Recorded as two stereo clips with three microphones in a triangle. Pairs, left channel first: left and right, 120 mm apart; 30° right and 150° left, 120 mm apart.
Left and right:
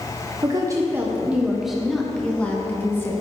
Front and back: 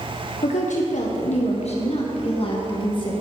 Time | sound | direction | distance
0.4 | a woman speaking | 35° right | 1.2 m